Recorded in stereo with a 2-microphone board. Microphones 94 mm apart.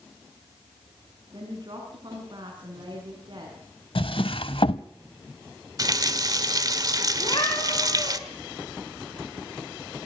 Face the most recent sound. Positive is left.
turn(degrees=50)  # may be behind; listen again after turning